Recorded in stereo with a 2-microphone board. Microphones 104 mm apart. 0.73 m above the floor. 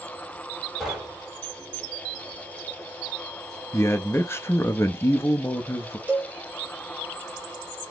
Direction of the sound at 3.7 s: 25° left (ahead or behind).